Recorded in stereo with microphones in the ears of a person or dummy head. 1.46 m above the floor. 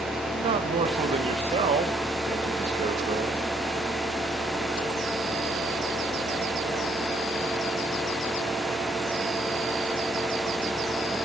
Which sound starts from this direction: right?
A man speaking, at 0.3 s.